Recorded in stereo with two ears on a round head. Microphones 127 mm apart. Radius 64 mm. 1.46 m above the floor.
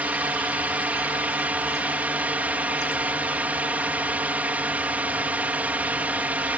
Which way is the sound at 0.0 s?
10° right (ahead or behind).